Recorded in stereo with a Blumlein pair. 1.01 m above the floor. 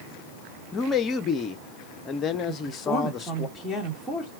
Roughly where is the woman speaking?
Ahead.